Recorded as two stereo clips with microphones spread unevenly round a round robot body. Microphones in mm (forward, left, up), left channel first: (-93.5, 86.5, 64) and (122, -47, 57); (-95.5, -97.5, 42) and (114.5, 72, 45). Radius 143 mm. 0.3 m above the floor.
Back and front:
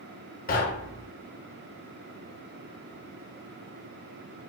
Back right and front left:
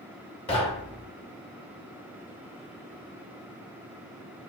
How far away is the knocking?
About 0.7 m.